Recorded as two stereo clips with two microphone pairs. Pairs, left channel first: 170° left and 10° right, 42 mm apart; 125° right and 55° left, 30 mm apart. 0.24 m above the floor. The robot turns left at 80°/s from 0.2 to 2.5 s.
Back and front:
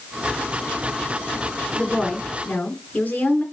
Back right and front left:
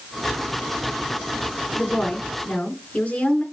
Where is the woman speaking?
90° right, 3.5 m; by 3.4 s 145° right, 3.5 m.